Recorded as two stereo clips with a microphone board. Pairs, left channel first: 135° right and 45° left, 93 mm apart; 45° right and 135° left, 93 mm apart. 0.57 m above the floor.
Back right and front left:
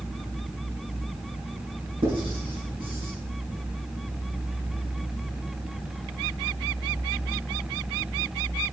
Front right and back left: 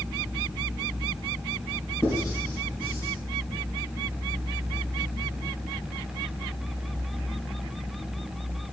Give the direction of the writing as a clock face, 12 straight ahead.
11 o'clock.